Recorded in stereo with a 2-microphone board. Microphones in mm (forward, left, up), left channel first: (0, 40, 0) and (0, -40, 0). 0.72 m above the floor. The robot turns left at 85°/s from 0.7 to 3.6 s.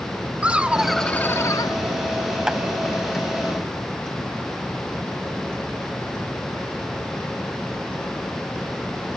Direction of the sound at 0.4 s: 165° right.